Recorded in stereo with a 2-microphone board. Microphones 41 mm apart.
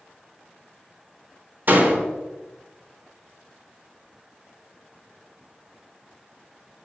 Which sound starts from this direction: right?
A door slam, at 1.7 s.